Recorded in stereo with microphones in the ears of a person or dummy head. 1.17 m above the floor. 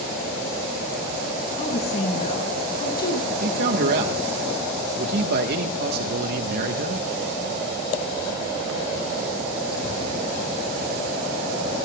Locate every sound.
1.6 s a woman speaking: 45° left (ahead or behind), 5 m
3.3 s a man speaking: 60° right (ahead or behind), 1.3 m